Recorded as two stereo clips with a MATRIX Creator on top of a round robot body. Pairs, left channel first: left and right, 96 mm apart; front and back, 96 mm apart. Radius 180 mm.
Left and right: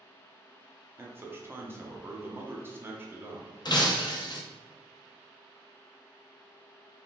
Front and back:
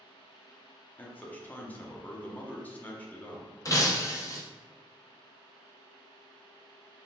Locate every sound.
1.0 s a man speaking: 55° right, 1.0 m
3.6 s breaking glass: 50° left, 0.9 m